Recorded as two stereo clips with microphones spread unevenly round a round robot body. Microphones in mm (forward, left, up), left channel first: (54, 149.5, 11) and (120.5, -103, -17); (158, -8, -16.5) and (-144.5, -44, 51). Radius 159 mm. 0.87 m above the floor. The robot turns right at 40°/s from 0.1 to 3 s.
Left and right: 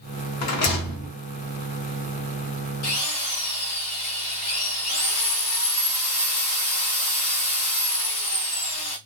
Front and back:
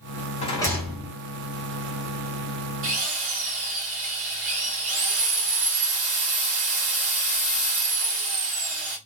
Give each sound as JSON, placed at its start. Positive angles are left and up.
{"t": 0.4, "sound": "a rattle", "azimuth_deg": 80, "distance_m": 0.8}
{"t": 2.8, "sound": "a drill", "azimuth_deg": 135, "distance_m": 1.0}